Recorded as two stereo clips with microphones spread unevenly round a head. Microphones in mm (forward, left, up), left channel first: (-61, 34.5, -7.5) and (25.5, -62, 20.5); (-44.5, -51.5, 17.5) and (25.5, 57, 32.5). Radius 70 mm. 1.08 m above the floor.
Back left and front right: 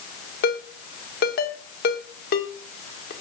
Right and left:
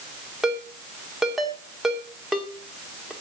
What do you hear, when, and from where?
0.4 s a ringtone: 145° left, 2 m